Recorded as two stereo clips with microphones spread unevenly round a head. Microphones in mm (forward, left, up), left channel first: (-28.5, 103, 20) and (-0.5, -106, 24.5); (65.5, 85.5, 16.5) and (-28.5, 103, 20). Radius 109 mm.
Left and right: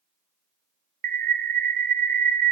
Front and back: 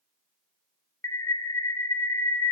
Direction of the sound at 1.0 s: 55° right.